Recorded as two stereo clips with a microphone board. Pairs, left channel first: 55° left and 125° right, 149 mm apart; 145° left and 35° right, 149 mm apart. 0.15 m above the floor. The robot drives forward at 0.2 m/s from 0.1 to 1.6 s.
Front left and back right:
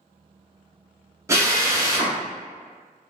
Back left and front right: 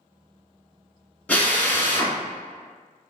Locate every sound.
1.3 s a drill: 150° right, 0.7 m; by 2.2 s 155° right, 0.7 m